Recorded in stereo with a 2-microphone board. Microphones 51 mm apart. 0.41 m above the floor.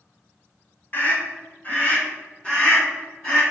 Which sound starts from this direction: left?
A scream, at 0.9 s.